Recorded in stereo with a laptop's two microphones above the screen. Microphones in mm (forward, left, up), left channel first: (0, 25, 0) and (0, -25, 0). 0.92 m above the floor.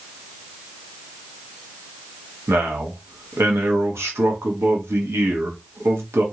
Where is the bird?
No bird in this recording.